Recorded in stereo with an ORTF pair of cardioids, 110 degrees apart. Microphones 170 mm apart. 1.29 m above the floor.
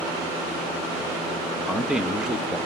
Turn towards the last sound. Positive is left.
turn(degrees=-5)